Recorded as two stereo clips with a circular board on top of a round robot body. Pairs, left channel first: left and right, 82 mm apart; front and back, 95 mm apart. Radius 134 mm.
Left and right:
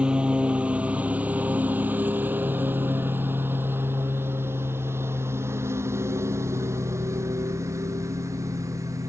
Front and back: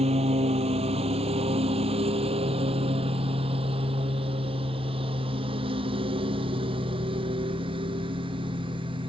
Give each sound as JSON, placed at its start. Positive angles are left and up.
{"t": 0.0, "sound": "a lawn mower", "azimuth_deg": -170}